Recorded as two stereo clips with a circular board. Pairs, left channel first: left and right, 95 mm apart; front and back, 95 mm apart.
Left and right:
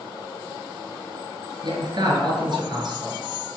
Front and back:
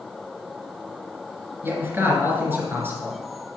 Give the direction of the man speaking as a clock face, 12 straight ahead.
4 o'clock.